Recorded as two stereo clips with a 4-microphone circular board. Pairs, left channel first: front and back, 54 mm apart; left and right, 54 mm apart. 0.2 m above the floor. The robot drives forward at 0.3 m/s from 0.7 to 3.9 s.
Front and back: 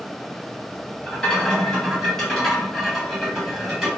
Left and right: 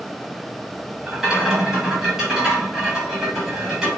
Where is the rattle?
35° right, 1.4 m; by 3.9 s 145° right, 1.4 m.